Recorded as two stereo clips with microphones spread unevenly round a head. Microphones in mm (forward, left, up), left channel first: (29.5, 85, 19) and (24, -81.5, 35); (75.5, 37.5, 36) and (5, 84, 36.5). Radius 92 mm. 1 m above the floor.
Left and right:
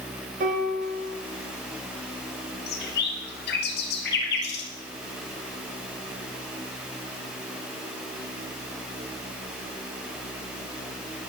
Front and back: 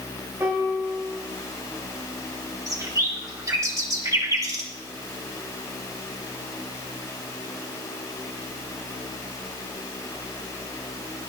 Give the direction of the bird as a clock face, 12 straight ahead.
9 o'clock.